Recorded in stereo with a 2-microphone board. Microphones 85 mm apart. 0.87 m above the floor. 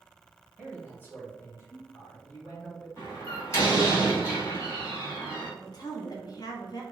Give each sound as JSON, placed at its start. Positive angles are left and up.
{"t": 0.6, "sound": "a man speaking", "side_deg": 20, "distance_m": 1.3}
{"t": 3.0, "sound": "a door slam", "side_deg": 35, "distance_m": 1.9}
{"t": 5.6, "sound": "a woman speaking", "side_deg": 50, "distance_m": 0.7}